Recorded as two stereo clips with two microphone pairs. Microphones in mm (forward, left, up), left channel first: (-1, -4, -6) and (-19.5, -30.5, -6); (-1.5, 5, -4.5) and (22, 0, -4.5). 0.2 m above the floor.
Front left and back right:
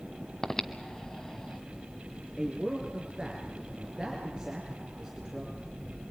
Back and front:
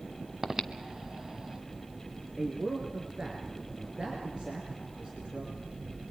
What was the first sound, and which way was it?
Breathing, 10° left.